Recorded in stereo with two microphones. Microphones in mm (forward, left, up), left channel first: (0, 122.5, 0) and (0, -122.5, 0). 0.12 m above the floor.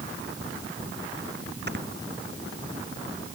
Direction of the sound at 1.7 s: 45° right (ahead or behind).